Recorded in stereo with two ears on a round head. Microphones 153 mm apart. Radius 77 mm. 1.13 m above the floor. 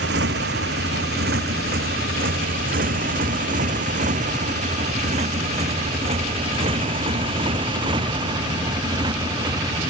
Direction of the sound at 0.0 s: 70° right (ahead or behind).